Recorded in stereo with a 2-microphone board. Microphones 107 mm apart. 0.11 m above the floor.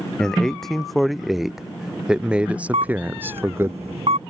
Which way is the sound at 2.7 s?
75° right (ahead or behind).